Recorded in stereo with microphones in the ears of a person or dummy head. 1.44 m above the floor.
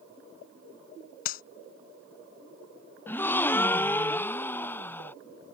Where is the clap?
50° left (ahead or behind).